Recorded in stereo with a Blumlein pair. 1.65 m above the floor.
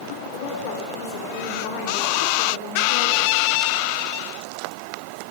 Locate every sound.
0.2 s a woman speaking: 50° left, 5.5 m; by 3.3 s 80° left, 3.5 m